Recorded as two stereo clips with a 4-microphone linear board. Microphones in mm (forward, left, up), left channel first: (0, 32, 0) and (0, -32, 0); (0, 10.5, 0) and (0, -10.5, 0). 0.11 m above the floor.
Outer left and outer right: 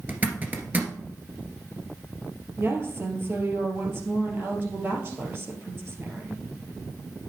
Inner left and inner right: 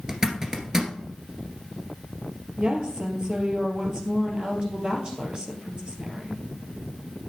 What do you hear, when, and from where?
0.1 s a zipper: 25° right (ahead or behind), 1.7 m
2.6 s a woman speaking: 40° right (ahead or behind), 2.5 m